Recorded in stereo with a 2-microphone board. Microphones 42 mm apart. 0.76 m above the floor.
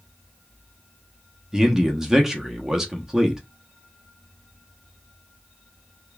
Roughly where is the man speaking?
Centre.